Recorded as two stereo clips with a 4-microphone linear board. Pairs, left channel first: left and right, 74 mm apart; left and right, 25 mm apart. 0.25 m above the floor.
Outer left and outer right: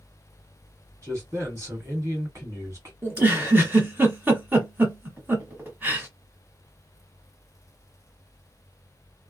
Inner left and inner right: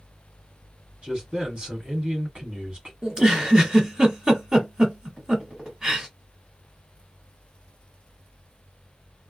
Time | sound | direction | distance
1.0 | a man speaking | 40° right (ahead or behind) | 1.7 m
3.0 | a giggle | 25° right (ahead or behind) | 1.0 m